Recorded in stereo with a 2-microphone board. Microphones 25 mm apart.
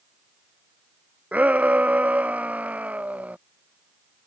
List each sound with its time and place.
1.3 s a shout: 70° right (ahead or behind)